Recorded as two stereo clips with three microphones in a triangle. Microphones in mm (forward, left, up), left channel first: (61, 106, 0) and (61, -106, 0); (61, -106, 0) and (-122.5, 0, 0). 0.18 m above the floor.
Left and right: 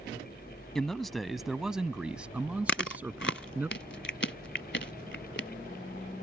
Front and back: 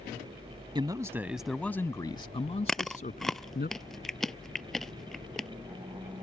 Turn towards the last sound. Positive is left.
turn(degrees=60)